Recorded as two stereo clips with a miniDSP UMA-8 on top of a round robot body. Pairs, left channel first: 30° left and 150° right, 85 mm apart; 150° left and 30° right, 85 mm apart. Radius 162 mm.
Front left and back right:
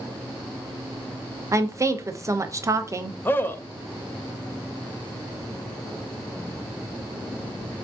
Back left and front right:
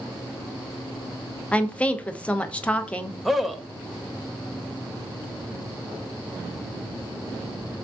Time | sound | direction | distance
1.5 | a woman speaking | 145° right | 0.7 m
3.2 | a man speaking | 60° left | 0.6 m